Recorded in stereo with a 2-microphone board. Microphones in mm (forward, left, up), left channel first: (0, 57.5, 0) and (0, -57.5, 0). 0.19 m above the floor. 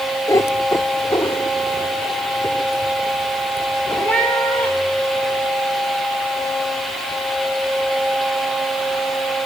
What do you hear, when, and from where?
0.3 s a cat meowing: 30° left (ahead or behind), 0.8 m; by 5.4 s 15° left (ahead or behind), 8 m